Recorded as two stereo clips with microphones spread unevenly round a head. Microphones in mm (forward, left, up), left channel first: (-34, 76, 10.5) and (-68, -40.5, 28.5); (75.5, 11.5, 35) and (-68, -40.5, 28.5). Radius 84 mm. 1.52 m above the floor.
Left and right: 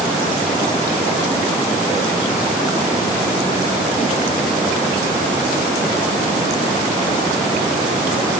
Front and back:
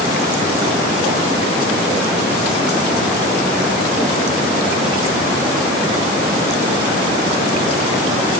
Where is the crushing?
No crushing in this recording.